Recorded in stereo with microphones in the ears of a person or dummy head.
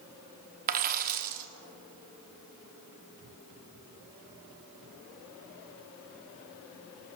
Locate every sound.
0.7 s a dropped coin: 50° right (ahead or behind), 1.1 m